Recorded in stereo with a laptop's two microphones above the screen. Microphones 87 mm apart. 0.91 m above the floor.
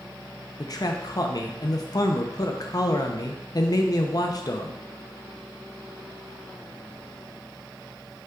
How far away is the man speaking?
About 0.6 m.